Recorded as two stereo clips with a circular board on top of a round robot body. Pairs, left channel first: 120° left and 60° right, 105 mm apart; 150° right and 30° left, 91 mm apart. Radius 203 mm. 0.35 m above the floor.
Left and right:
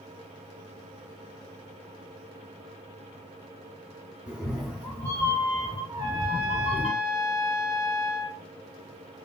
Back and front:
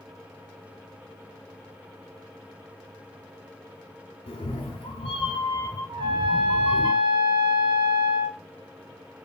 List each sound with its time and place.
4.3 s a cat meowing: 140° right, 0.7 m; by 6.9 s 135° left, 1.2 m
5.9 s a trumpet: 5° right, 0.5 m